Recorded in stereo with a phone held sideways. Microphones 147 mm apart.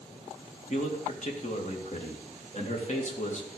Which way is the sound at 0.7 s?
50° left (ahead or behind).